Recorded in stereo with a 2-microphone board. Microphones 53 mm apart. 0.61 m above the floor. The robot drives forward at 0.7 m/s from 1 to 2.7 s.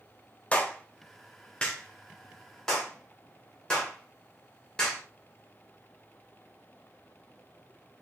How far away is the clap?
About 0.8 m.